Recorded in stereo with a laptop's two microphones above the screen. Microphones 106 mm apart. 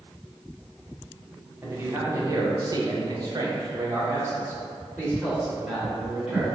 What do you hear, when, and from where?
1.6 s a man speaking: 20° right (ahead or behind), 0.9 m